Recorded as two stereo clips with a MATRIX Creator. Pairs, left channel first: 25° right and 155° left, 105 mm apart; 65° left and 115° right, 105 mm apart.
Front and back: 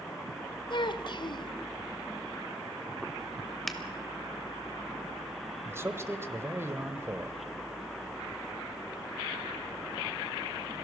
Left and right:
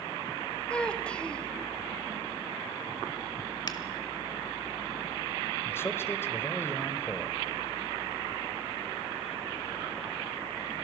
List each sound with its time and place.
0.7 s a child speaking: 10° right, 1.1 m
3.7 s a finger snap: 65° left, 1.6 m
5.7 s a man speaking: 115° left, 1.3 m